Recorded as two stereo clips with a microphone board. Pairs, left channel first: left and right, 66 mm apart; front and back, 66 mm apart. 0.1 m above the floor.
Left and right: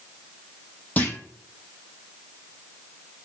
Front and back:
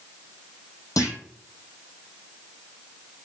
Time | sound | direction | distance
1.0 | a clunk | 25° left | 0.6 m